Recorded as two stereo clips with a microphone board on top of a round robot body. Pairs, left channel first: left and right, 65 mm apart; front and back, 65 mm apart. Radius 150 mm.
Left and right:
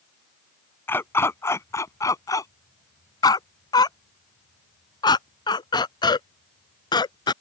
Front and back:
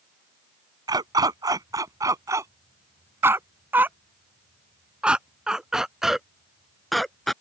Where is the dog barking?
150° left; by 7.3 s 85° left.